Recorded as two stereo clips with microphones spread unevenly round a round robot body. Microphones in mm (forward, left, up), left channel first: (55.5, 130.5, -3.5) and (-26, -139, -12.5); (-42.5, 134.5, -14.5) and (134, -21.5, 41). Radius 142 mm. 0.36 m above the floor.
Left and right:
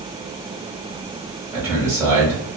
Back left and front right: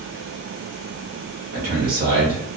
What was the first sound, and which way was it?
A man speaking, 45° right.